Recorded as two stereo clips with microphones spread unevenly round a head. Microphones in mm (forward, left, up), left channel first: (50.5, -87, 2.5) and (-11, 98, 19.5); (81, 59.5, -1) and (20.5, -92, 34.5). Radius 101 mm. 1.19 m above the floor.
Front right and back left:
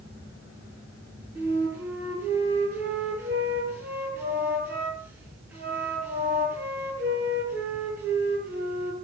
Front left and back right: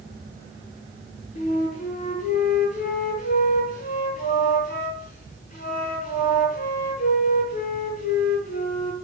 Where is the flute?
30° left, 9 m.